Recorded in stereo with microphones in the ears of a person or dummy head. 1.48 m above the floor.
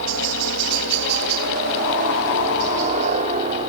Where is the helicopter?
60° right (ahead or behind); by 3.7 s 30° right (ahead or behind).